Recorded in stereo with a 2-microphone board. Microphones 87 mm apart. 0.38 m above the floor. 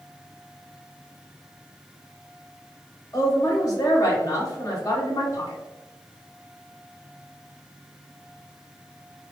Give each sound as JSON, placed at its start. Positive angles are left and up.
{"t": 3.1, "sound": "a woman speaking", "side_deg": 45, "distance_m": 1.5}